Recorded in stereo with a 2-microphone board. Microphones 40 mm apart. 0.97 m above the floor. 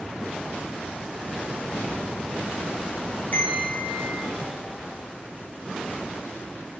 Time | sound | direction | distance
3.3 | a bell | 45° left (ahead or behind) | 1.3 m